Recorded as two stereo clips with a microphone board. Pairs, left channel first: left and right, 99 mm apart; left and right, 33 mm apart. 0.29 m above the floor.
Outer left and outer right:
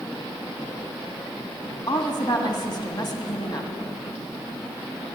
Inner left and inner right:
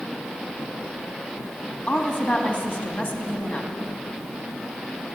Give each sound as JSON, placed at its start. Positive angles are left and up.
{"t": 1.9, "sound": "a woman speaking", "side_deg": 50, "distance_m": 2.0}